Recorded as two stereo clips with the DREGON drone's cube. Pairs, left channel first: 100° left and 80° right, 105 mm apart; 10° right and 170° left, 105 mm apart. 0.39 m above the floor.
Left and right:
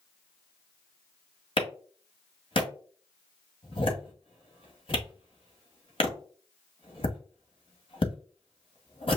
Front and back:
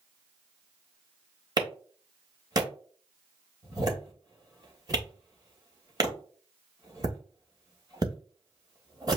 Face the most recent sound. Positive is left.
turn(degrees=120)